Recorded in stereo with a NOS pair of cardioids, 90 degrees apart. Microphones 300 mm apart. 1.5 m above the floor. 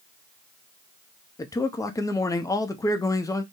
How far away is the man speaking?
About 0.5 m.